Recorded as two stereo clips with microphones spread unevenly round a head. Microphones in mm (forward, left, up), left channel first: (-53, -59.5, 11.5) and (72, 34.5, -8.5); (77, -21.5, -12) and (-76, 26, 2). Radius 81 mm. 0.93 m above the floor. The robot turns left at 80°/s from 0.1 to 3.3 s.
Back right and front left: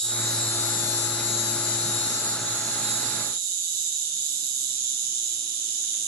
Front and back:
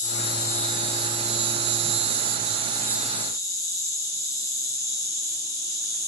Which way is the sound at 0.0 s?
55° right.